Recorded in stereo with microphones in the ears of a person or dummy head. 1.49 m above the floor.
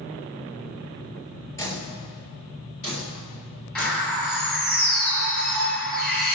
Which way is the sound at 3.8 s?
10° left (ahead or behind).